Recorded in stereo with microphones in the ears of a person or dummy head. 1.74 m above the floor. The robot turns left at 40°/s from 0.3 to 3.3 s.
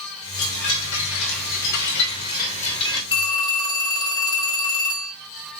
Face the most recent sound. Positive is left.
turn(degrees=25)  # may be behind; listen again after turning